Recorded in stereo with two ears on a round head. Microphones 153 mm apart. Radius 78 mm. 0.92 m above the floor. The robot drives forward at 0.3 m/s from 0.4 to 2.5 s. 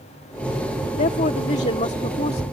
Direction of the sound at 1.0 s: 45° left (ahead or behind).